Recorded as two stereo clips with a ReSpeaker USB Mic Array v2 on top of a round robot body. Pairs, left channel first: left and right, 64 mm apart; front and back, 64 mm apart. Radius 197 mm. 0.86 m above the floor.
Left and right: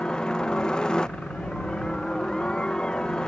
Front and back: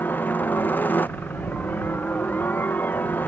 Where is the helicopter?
25° left.